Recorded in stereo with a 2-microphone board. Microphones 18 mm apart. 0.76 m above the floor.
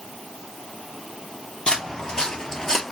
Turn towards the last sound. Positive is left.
turn(degrees=20)  # may be behind; listen again after turning